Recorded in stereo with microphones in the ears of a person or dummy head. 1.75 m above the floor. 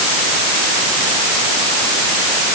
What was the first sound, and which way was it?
Only background noise.